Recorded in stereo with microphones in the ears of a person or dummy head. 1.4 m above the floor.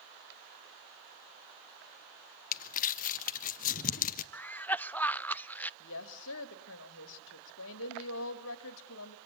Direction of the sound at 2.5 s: 45° left (ahead or behind).